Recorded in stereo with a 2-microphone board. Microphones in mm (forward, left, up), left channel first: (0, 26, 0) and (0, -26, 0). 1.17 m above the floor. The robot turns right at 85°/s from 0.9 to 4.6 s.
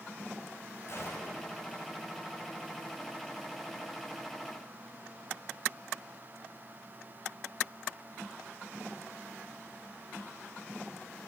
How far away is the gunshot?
About 7 m.